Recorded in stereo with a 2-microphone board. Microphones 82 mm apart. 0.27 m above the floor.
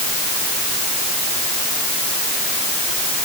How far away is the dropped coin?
No dropped coin in this recording.